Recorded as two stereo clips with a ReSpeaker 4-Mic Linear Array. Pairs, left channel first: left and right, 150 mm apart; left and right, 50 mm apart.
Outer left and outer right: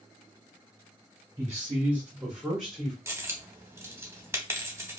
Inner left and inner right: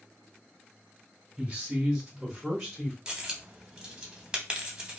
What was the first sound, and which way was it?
A man speaking, 15° right (ahead or behind).